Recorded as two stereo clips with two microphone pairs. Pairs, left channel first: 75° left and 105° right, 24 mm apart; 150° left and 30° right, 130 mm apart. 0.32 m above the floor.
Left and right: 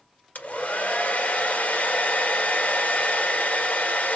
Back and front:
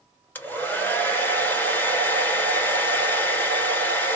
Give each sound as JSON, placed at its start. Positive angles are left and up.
{"t": 0.3, "sound": "a hair dryer", "azimuth_deg": 75, "distance_m": 1.6}